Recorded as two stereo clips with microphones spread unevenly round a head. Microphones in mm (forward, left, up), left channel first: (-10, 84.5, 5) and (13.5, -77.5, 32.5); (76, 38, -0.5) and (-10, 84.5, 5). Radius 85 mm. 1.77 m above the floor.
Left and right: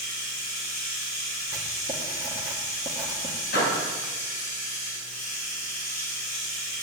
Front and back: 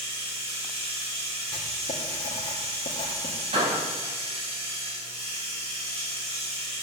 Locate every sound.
0.0 s running water: 135° left, 7 m
1.5 s writing: 15° right, 2.0 m
3.5 s a door slam: 135° left, 7 m